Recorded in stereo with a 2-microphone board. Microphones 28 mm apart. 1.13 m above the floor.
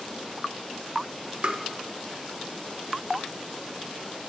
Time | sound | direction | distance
1.4 | tapping | 45° right (ahead or behind) | 0.8 m